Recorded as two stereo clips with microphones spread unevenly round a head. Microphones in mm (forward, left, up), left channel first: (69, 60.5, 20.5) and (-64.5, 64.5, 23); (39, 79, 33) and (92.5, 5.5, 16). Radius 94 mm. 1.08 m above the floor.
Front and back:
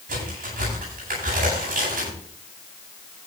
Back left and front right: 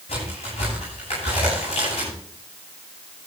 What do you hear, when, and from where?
0.1 s a crack: 175° left, 9.5 m